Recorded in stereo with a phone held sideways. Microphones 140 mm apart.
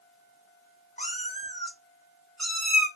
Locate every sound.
1.0 s a cat meowing: 55° left (ahead or behind), 0.9 m; by 2.9 s 10° right (ahead or behind), 1.0 m